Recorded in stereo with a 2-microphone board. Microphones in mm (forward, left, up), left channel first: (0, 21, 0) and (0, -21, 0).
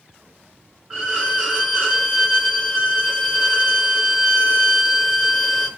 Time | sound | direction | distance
0.9 | a violin | 10° right (ahead or behind) | 1.9 m